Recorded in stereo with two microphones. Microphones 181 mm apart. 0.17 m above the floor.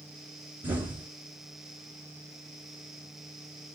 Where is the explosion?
10° right (ahead or behind), 1.9 m.